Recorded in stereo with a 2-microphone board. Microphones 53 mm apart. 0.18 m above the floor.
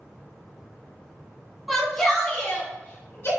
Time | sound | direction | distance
1.7 | a shout | 5° right (ahead or behind) | 1.6 m